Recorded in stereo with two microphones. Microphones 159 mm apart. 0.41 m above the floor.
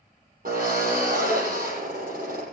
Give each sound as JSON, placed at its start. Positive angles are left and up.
{"t": 0.5, "sound": "a drill", "side_deg": -60, "distance_m": 7.0}